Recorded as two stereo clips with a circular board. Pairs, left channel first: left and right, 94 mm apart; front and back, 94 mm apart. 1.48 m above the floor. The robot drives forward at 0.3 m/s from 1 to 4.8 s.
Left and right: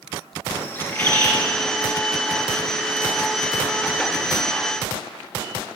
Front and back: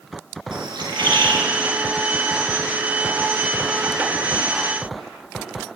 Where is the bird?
155° left, 1.4 m.